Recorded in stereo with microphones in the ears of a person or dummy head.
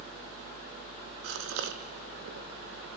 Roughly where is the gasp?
Right.